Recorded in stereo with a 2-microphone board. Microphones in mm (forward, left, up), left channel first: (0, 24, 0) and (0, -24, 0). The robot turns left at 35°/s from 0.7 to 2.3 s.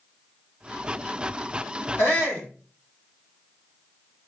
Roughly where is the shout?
Left.